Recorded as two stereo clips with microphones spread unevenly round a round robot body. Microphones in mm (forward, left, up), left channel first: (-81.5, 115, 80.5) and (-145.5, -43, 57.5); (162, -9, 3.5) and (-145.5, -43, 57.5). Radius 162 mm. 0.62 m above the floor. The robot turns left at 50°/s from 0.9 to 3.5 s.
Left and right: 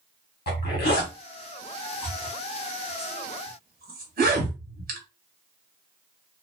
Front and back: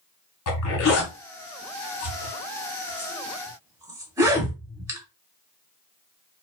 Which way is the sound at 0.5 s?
40° left.